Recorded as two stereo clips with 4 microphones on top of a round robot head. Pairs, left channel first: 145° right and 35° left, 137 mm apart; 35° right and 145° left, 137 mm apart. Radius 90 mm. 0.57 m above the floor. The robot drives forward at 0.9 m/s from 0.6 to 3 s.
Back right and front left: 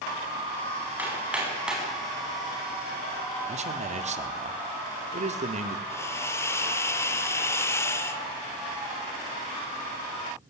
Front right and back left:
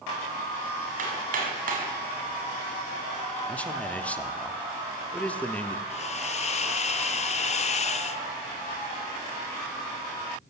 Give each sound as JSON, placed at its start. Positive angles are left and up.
{"t": 1.0, "sound": "hammering", "azimuth_deg": 115, "distance_m": 5.0}
{"t": 3.5, "sound": "a man speaking", "azimuth_deg": 45, "distance_m": 1.7}
{"t": 5.9, "sound": "a hiss", "azimuth_deg": -75, "distance_m": 1.2}